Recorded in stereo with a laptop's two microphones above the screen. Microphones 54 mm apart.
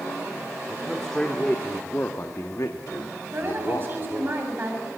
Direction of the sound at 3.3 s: 35° right (ahead or behind).